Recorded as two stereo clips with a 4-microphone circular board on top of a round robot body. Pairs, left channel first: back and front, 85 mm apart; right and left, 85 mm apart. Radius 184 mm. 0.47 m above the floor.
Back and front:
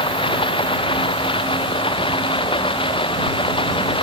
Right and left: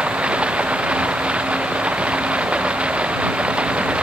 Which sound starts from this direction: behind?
Running water, at 0.0 s.